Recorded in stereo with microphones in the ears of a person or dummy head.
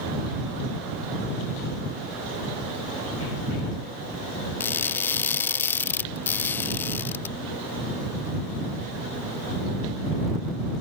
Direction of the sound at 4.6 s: 10° left (ahead or behind).